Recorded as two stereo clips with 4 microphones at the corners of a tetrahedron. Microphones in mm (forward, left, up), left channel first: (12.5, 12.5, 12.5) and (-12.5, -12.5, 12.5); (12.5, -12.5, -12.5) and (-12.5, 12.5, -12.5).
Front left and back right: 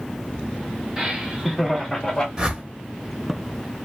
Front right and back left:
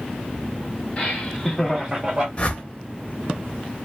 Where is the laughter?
80° right, 1.0 m; by 2.3 s 110° left, 0.9 m.